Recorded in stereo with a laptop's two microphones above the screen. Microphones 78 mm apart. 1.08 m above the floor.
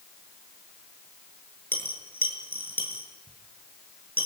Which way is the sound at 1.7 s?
25° left (ahead or behind).